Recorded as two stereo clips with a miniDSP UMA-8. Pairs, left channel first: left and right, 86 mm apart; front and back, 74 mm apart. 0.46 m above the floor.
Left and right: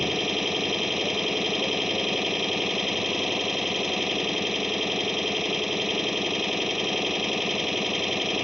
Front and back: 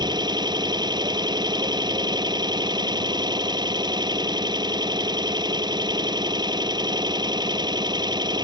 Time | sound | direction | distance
0.0 | an engine running | 175° right | ?